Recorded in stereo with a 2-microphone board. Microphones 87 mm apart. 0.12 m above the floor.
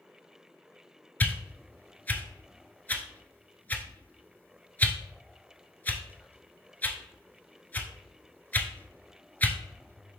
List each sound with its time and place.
1.2 s a whoosh: 20° left (ahead or behind), 0.5 m